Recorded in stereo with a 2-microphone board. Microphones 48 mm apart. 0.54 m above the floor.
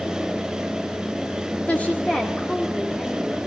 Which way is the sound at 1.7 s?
30° left (ahead or behind).